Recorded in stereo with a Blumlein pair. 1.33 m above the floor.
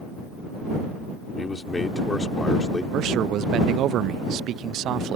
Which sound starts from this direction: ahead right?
A man speaking, at 2.9 s.